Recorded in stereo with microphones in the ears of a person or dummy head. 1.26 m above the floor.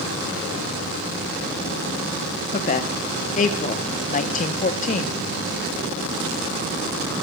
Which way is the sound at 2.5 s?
35° left (ahead or behind).